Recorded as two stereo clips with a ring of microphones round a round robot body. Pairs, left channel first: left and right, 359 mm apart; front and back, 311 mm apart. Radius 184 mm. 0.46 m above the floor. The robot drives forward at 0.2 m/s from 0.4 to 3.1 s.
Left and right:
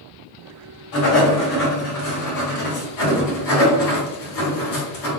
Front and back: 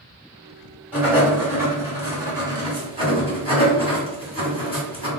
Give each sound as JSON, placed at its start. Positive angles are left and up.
{"t": 0.9, "sound": "writing", "azimuth_deg": 95, "distance_m": 1.9}